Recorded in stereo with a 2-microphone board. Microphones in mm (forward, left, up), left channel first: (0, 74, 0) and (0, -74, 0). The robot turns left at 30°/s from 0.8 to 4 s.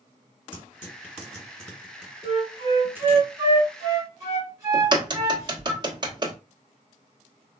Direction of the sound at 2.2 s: 35° right (ahead or behind).